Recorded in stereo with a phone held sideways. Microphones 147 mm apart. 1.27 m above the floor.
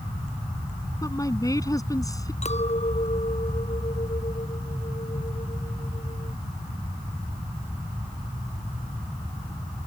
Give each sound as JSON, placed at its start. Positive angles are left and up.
{"t": 1.0, "sound": "a woman speaking", "side_deg": 25}
{"t": 2.4, "sound": "a clink", "side_deg": 50}